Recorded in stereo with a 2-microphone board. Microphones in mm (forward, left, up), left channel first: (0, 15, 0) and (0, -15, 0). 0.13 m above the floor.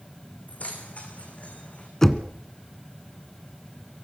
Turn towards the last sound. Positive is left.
turn(degrees=15)  # may be behind; listen again after turning